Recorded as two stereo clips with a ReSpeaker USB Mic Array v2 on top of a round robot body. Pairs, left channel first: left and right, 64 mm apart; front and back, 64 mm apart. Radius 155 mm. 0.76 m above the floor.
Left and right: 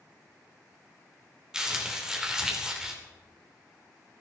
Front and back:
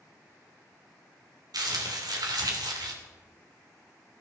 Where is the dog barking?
No dog barking in this recording.